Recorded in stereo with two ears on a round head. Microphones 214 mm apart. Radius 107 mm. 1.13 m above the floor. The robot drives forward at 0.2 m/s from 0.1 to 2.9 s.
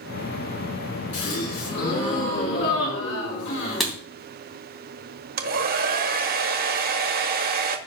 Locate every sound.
1.1 s a gasp: 75° left (ahead or behind), 6.5 m
3.8 s writing: centre (ahead or behind), 3 m
5.4 s a hair dryer: 40° right (ahead or behind), 0.9 m